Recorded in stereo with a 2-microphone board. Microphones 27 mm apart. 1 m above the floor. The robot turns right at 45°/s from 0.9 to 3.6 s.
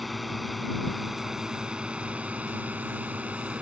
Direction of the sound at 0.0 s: Centre (ahead or behind).